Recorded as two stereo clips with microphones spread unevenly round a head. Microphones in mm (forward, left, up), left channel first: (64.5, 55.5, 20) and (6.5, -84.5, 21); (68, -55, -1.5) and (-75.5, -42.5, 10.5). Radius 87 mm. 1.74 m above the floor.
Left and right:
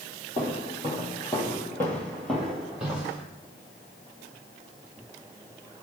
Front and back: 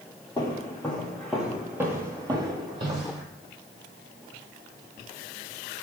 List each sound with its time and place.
0.4 s footsteps: 55° left, 2.0 m; by 3.2 s 170° left, 2.5 m